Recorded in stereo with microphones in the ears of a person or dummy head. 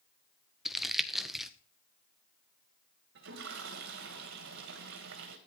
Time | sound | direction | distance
0.7 | crumpling | centre (ahead or behind) | 0.8 m
3.1 | a toilet flushing | 65° right (ahead or behind) | 1.5 m